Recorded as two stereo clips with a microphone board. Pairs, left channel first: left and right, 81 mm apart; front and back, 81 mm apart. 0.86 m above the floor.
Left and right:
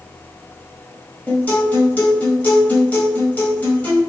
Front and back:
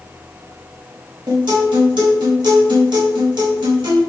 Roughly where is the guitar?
Behind.